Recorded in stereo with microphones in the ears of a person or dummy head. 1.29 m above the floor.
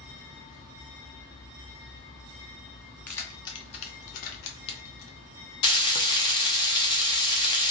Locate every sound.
3.1 s keys jangling: 10° left (ahead or behind), 1.0 m; by 5.2 s 70° left (ahead or behind), 1.2 m
5.6 s frying: 20° left (ahead or behind), 0.6 m